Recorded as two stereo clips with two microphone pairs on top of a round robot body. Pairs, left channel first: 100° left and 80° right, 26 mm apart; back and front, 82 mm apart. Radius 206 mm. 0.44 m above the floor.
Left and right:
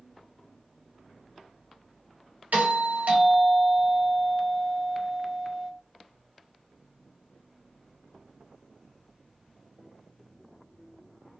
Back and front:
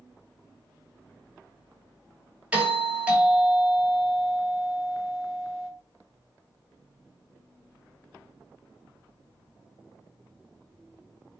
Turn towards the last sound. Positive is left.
turn(degrees=-75)